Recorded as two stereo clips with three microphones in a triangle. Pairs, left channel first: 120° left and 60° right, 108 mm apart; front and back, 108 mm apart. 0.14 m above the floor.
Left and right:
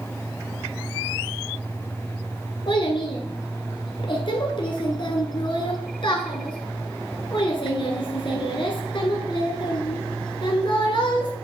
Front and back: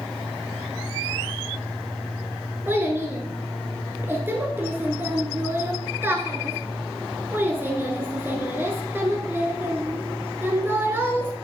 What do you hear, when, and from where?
2.7 s a child speaking: 115° left, 1.3 m